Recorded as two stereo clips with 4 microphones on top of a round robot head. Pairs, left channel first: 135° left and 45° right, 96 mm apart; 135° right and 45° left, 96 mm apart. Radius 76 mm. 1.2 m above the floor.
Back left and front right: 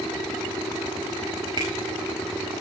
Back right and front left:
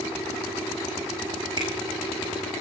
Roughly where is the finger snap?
Ahead.